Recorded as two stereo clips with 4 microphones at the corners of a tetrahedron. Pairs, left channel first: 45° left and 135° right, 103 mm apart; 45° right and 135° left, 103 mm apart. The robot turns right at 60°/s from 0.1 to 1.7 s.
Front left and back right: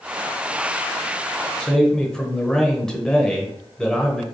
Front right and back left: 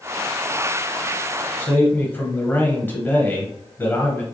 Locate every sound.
1.6 s a man speaking: 30° right, 0.9 m; by 4.2 s 25° right, 0.9 m